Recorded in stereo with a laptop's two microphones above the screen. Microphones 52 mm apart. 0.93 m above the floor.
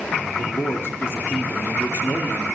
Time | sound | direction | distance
0.4 | a man speaking | 50° left (ahead or behind) | 1.7 m